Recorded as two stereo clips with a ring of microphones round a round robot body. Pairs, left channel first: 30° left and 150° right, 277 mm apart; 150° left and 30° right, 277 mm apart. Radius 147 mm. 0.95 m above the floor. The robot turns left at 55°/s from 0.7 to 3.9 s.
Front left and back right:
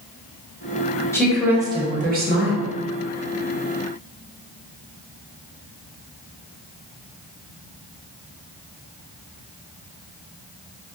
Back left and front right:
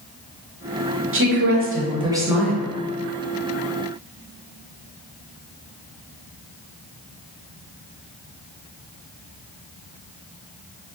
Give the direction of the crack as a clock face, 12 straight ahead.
No crack in this recording.